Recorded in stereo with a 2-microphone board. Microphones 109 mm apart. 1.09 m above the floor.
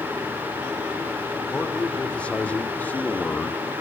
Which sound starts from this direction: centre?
A man speaking, at 1.5 s.